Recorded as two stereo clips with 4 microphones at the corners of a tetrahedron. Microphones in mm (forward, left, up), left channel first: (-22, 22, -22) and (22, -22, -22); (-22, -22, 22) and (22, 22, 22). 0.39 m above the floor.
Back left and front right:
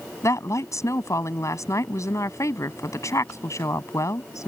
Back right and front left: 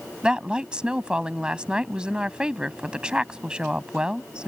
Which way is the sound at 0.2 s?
115° left.